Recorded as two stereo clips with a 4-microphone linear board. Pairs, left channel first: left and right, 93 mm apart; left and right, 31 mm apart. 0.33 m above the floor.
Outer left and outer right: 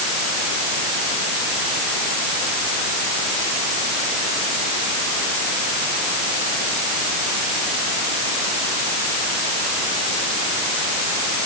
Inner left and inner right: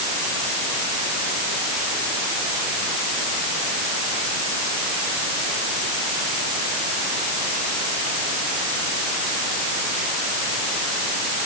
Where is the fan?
No fan in this recording.